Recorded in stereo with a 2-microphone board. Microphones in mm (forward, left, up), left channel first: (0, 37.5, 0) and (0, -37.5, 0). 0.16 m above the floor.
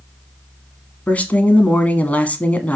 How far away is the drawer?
I don't hear a drawer.